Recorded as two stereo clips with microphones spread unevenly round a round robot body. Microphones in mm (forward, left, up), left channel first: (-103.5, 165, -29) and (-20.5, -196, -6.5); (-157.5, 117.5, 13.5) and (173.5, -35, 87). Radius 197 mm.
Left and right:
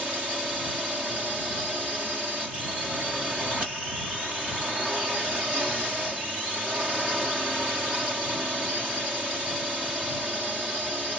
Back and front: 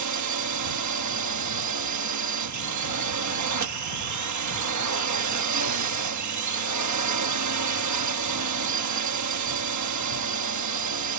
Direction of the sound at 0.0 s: 15° left.